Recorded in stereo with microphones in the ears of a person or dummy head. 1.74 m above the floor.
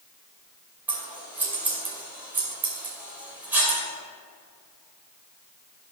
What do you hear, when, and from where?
0.9 s scissors: 10° right (ahead or behind), 2.5 m